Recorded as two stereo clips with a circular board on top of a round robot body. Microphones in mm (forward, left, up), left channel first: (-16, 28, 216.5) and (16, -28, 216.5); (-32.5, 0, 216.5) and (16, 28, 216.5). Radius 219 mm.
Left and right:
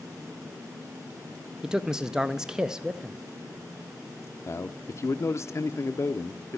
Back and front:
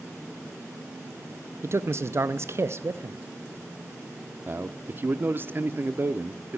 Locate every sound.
1.6 s a man speaking: 20° left, 0.6 m
4.5 s a man speaking: 80° left, 0.7 m